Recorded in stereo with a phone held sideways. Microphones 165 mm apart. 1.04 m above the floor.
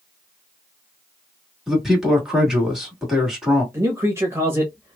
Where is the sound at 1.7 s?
5° right (ahead or behind), 1.7 m.